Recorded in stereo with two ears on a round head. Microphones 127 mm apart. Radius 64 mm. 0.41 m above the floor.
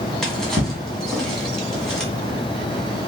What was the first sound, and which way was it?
A drawer, 5° left (ahead or behind).